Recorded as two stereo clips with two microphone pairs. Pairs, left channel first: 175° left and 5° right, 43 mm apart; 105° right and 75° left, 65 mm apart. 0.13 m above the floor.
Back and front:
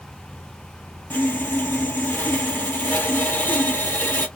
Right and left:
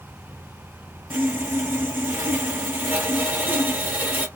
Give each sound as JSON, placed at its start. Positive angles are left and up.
{"t": 1.1, "sound": "sawing", "azimuth_deg": 135, "distance_m": 0.7}